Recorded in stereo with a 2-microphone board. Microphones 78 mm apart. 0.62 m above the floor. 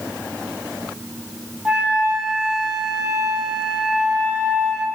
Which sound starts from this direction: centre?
A flute, at 1.6 s.